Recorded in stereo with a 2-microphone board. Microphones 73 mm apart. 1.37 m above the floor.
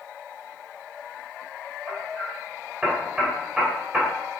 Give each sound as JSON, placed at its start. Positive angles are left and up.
{"t": 1.9, "sound": "hammering", "side_deg": -10, "distance_m": 3.5}